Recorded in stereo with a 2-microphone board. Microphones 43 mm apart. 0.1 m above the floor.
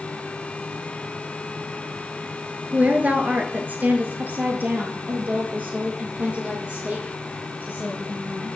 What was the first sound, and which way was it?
A woman speaking, 35° right (ahead or behind).